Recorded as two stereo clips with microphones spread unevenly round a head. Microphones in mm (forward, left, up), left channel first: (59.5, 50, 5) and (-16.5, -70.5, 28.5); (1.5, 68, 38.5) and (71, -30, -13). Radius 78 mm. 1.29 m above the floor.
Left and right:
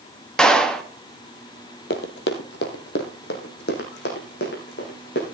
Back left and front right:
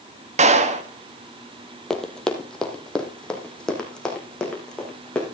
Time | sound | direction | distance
0.4 | a clap | 25° right | 1.8 m
1.9 | running footsteps | 60° left | 2 m